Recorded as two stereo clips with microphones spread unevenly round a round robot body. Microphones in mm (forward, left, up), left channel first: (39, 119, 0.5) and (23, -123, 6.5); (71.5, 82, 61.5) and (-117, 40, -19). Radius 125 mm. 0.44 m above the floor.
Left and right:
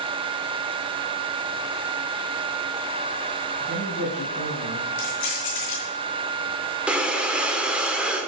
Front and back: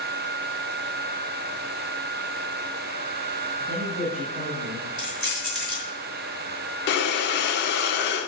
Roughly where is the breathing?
Ahead.